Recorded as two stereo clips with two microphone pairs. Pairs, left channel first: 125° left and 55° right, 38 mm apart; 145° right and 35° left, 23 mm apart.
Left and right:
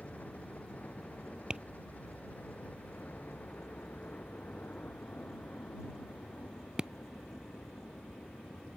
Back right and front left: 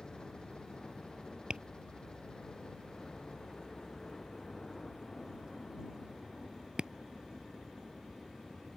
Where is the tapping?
10° left.